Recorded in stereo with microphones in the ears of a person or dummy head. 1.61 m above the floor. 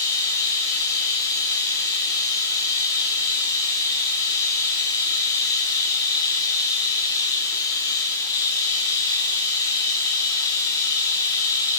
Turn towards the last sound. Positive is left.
turn(degrees=20)  # may be behind; listen again after turning